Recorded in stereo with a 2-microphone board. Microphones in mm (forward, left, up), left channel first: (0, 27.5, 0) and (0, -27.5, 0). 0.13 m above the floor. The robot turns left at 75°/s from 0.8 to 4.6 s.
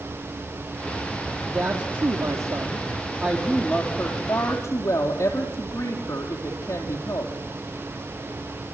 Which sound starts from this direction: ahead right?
A woman speaking, at 1.5 s.